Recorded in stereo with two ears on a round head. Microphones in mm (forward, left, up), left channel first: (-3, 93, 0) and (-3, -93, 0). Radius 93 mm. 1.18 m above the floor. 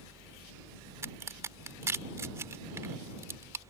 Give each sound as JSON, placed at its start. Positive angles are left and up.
{"t": 1.0, "sound": "a crack", "side_deg": -15}